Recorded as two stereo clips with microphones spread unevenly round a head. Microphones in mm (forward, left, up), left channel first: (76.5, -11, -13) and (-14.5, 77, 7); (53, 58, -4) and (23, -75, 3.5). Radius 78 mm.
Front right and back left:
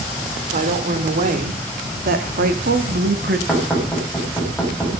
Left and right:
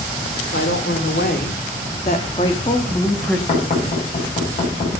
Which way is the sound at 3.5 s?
40° left.